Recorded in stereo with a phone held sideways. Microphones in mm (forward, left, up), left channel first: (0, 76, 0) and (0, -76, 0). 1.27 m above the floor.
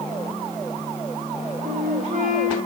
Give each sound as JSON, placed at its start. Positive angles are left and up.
{"t": 1.6, "sound": "a flute", "side_deg": -55, "distance_m": 1.4}